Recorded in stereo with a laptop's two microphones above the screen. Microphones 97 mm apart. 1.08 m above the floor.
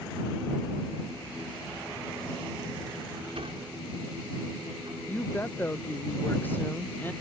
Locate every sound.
3.4 s a sliding door: 80° right
5.1 s a woman speaking: 20° left (ahead or behind)